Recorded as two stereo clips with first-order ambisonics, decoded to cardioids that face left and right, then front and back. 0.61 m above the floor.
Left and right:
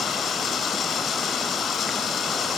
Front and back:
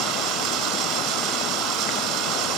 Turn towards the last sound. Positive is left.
turn(degrees=145)